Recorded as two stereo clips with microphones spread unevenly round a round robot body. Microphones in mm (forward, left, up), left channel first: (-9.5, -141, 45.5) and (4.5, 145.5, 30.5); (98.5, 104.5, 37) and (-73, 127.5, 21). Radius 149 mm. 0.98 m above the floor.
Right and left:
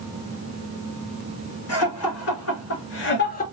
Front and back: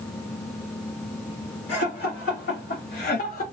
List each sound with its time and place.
1.7 s laughter: 55° right, 3 m; by 3.4 s 35° right, 0.9 m